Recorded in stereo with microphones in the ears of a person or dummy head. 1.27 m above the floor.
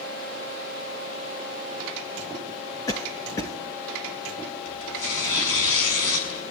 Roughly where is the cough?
Centre.